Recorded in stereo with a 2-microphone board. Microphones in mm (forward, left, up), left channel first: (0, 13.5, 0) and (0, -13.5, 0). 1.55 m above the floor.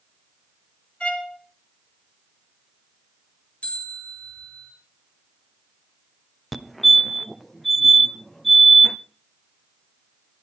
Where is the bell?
60° left (ahead or behind), 8 m.